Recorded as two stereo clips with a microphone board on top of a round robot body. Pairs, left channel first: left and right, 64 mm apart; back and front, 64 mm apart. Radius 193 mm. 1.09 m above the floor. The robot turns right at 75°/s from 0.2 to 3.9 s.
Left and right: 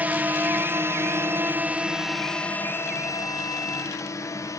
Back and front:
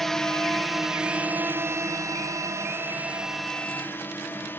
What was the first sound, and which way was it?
A drone, 95° right.